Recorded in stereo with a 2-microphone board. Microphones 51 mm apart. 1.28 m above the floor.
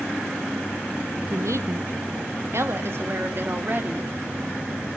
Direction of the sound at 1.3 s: 85° right.